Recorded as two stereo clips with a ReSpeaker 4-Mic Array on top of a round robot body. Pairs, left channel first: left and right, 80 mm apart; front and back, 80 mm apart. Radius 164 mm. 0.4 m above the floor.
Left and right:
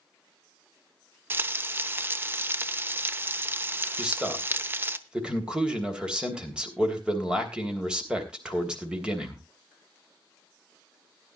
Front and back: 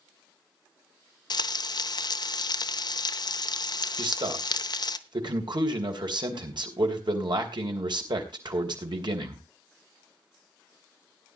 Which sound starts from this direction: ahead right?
Frying, at 1.3 s.